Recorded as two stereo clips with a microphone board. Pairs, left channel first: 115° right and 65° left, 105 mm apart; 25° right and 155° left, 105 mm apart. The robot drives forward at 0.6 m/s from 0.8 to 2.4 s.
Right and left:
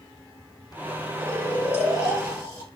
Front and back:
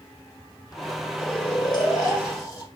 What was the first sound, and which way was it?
Snoring, 45° right.